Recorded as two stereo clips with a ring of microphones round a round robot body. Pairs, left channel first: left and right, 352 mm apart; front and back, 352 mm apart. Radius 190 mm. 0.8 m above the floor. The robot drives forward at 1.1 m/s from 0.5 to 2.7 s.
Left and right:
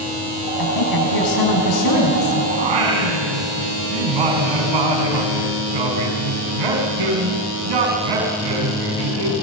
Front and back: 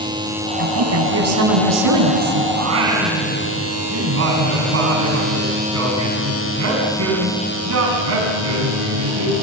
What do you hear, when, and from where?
0.6 s a woman speaking: 125° left, 5 m; by 2.5 s 140° left, 6.5 m
2.6 s singing: 120° right, 4 m